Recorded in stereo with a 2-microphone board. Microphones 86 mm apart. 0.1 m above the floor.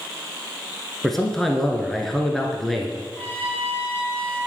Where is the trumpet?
15° left (ahead or behind), 2 m.